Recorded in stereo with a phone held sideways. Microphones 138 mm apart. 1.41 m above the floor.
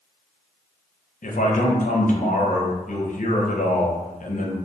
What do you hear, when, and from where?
1.2 s a man speaking: 70° left (ahead or behind), 0.5 m